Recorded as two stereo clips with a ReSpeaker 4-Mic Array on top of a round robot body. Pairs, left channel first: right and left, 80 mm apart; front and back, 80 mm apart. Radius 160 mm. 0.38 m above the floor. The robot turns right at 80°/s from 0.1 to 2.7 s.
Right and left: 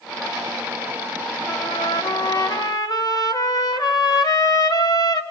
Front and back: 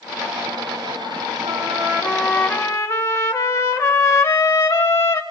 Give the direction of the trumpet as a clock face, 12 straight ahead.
5 o'clock.